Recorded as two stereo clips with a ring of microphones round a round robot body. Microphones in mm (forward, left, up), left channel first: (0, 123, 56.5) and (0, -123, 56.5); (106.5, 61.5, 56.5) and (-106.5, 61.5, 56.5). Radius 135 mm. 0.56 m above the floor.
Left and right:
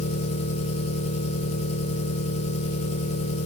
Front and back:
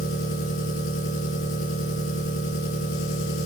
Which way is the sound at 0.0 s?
25° left.